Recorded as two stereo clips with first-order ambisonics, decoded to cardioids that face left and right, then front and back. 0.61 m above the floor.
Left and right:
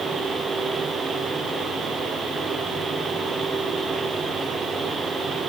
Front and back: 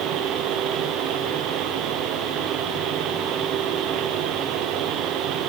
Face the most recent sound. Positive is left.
No sound to turn to.